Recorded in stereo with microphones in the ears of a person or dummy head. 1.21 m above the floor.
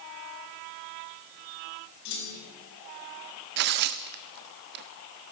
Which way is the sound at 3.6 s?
55° right (ahead or behind).